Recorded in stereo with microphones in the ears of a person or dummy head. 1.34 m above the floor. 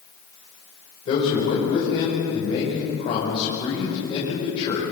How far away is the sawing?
I don't hear sawing.